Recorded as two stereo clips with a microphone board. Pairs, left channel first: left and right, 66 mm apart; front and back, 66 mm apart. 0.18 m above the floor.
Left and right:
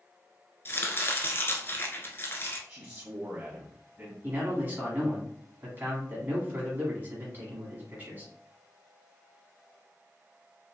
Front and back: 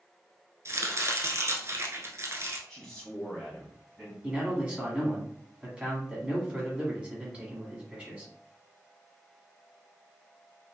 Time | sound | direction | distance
0.7 | chopping | 140° left | 0.6 m
2.7 | a man speaking | 70° right | 1.1 m
4.2 | a man speaking | 120° right | 1.3 m